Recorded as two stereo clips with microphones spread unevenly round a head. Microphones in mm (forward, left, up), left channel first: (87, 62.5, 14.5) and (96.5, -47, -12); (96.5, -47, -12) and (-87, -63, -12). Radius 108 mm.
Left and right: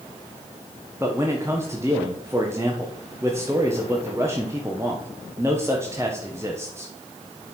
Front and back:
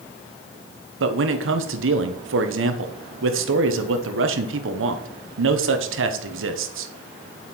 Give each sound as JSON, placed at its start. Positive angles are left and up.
{"t": 1.0, "sound": "a man speaking", "azimuth_deg": -165, "distance_m": 1.1}